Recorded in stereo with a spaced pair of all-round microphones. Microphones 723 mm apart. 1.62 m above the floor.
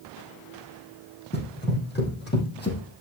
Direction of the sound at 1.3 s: 15° left (ahead or behind).